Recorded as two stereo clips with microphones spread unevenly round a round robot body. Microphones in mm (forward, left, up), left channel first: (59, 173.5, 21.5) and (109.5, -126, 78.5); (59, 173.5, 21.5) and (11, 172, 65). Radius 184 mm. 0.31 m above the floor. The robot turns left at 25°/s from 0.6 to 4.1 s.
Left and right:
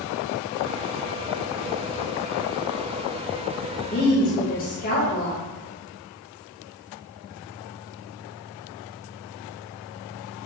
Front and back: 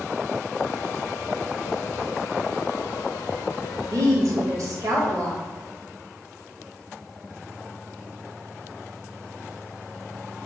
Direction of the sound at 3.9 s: 135° left.